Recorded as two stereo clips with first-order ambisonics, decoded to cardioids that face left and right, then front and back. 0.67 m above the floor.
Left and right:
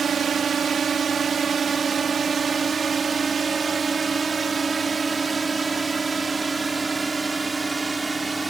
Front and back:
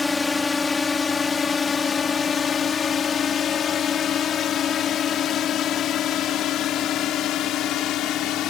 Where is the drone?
65° right; by 8.5 s 15° right.